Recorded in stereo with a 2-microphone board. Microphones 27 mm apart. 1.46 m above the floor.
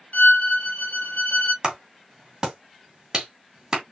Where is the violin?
65° left (ahead or behind), 0.9 m.